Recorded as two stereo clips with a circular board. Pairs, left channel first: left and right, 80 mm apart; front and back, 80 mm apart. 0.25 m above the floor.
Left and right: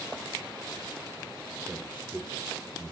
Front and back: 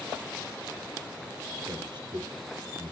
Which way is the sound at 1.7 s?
160° right.